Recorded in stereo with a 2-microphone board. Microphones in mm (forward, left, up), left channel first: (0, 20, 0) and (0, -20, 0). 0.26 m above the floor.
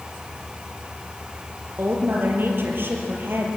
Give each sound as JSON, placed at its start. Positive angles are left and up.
{"t": 1.8, "sound": "a woman speaking", "side_deg": -60, "distance_m": 5.0}